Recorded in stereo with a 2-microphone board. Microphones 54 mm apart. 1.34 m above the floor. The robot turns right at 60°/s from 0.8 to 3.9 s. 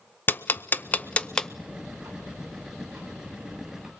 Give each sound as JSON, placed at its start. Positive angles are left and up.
{"t": 0.3, "sound": "ticking", "side_deg": 35, "distance_m": 0.6}
{"t": 1.7, "sound": "ticking", "azimuth_deg": -135, "distance_m": 5.0}